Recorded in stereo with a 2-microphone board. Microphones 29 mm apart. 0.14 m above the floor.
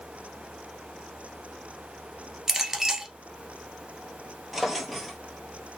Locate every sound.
2.5 s a clink: 15° right (ahead or behind), 1.1 m
4.5 s a drawer: 5° right (ahead or behind), 0.9 m